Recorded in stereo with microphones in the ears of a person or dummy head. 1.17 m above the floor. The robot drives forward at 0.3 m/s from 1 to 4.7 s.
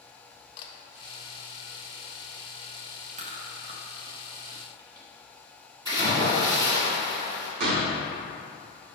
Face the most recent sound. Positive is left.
turn(degrees=-60)  # may be behind; listen again after turning